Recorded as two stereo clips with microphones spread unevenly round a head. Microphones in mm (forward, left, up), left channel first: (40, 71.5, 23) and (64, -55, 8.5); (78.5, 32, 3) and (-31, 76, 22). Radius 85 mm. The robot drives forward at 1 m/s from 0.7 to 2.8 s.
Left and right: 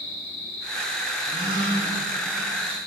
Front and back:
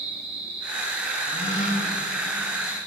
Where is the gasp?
20° right, 1.7 m; by 1.9 s 35° right, 1.1 m.